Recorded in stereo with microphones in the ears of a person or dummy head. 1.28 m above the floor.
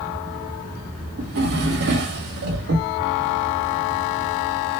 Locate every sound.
1.2 s a drawer: 60° right (ahead or behind), 1.1 m